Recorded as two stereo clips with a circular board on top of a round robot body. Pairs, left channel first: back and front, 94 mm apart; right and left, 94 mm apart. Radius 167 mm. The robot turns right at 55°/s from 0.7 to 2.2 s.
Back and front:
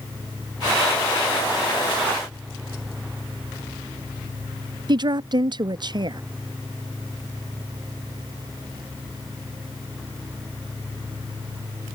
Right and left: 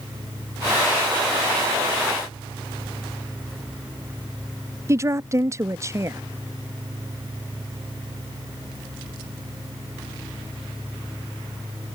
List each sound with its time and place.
4.9 s a woman speaking: 35° left